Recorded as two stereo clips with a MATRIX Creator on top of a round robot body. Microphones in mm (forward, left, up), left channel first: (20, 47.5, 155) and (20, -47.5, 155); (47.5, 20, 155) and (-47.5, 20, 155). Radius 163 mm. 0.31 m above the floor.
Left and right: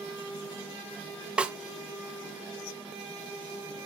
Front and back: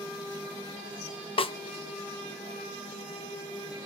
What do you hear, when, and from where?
1.4 s a snare drum: 10° right, 0.6 m